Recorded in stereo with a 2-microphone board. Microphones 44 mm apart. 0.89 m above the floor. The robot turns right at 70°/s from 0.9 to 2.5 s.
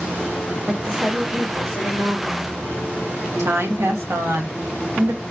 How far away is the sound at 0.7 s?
About 1.6 m.